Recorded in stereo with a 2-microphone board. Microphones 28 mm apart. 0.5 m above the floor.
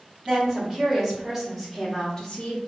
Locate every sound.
0.2 s a woman speaking: 20° right (ahead or behind), 1.7 m; by 2.6 s 35° left (ahead or behind), 0.8 m